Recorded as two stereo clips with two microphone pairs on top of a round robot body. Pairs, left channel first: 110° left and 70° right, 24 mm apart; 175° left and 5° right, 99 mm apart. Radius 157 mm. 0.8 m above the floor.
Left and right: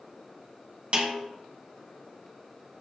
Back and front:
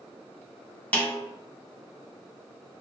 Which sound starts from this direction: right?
A snare drum, at 0.9 s.